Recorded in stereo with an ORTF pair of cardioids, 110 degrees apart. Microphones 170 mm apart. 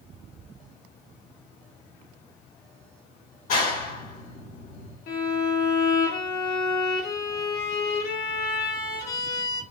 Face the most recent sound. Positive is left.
turn(degrees=65)